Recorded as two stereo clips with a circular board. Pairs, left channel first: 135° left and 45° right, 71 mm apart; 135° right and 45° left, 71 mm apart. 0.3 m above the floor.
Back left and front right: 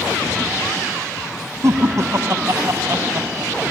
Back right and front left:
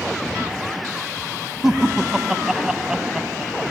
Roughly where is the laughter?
Ahead right.